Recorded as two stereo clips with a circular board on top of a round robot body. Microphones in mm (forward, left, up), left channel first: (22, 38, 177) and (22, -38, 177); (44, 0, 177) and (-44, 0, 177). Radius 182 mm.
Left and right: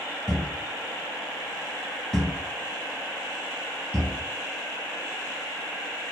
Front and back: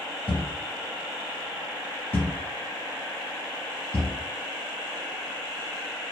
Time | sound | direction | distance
0.3 | a thud | 20° left | 0.8 m